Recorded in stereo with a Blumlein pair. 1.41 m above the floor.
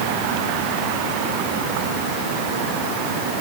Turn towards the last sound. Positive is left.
No sound to turn to.